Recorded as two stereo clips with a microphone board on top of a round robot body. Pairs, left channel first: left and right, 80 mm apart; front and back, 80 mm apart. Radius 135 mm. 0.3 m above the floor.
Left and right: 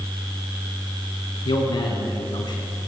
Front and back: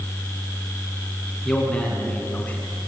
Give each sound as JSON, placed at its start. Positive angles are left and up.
{"t": 1.4, "sound": "a man speaking", "azimuth_deg": 80, "distance_m": 4.0}